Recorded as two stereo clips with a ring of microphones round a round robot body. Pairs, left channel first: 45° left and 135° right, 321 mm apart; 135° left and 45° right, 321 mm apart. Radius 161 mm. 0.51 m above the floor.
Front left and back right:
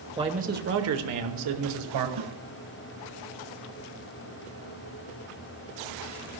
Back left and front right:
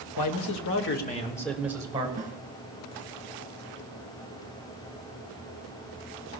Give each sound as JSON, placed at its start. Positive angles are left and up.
{"t": 0.2, "sound": "a man speaking", "azimuth_deg": 150, "distance_m": 1.7}
{"t": 2.2, "sound": "a snare drum", "azimuth_deg": -115, "distance_m": 1.9}